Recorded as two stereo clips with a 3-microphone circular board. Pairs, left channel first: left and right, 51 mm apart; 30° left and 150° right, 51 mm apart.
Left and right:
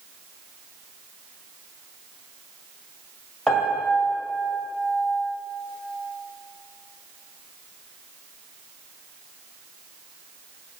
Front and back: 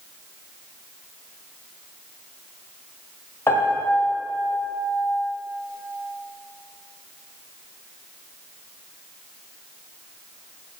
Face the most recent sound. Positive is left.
turn(degrees=10)